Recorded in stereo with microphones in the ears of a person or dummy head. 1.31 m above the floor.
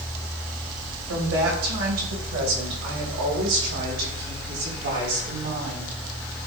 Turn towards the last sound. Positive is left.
turn(degrees=-70)  # may be behind; listen again after turning